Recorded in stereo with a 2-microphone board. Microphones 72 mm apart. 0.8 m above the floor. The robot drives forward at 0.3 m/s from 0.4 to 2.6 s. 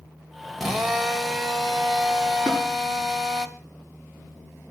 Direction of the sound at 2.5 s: 15° left (ahead or behind).